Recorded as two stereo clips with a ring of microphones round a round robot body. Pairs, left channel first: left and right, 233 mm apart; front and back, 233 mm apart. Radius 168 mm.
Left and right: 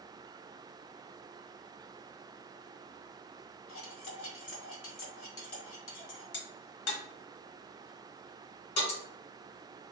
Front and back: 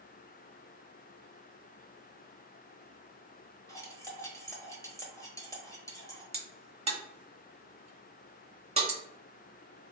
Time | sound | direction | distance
3.7 | cutlery clinking | 75° left | 1.2 m
6.3 | a crack | 115° left | 1.0 m